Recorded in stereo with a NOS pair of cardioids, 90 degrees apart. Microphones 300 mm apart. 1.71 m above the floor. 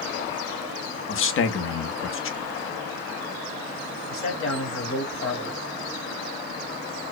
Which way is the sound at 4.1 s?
45° left.